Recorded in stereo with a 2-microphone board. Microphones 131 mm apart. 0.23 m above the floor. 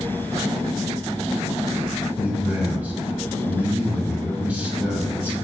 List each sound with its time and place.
2.2 s a man speaking: 10° right (ahead or behind), 1.3 m